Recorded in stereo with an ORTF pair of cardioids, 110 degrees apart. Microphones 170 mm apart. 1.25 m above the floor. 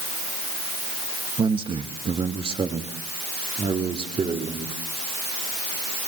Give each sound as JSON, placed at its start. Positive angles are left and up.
{"t": 1.4, "sound": "a man speaking", "azimuth_deg": -30, "distance_m": 1.7}